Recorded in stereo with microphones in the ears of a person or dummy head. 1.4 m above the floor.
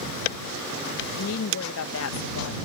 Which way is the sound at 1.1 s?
75° left (ahead or behind).